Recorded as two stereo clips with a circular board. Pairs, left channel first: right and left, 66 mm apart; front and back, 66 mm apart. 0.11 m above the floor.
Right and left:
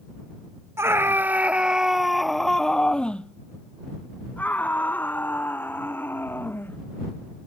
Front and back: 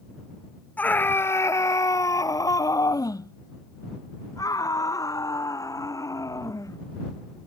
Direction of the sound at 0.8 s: 60° left.